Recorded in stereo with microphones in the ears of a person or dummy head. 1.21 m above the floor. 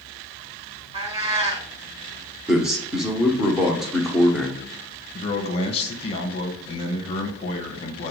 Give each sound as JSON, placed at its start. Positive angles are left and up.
{"t": 0.9, "sound": "a cat meowing", "side_deg": -35, "distance_m": 1.0}
{"t": 2.5, "sound": "a man speaking", "side_deg": 0, "distance_m": 0.8}
{"t": 5.1, "sound": "a man speaking", "side_deg": 35, "distance_m": 1.1}